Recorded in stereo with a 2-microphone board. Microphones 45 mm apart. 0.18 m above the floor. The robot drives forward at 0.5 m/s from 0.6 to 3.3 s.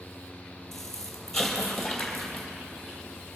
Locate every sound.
0.7 s an explosion: 10° left (ahead or behind), 2.5 m; by 2.5 s 5° left (ahead or behind), 3.5 m